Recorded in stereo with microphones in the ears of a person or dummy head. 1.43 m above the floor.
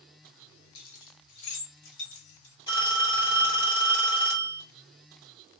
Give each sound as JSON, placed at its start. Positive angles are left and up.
{"t": 0.8, "sound": "keys jangling", "side_deg": 65, "distance_m": 0.9}
{"t": 2.7, "sound": "a phone ringing", "side_deg": 30, "distance_m": 1.6}